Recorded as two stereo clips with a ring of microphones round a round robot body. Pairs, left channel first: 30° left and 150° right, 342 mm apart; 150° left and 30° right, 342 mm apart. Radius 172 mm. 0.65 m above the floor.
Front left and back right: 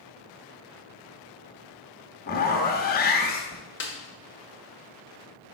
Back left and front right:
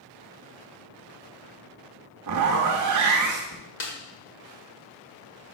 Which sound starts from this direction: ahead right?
A zipper, at 2.3 s.